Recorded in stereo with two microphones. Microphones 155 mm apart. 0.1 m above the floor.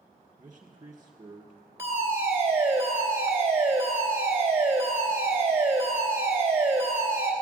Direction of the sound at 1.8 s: 15° right (ahead or behind).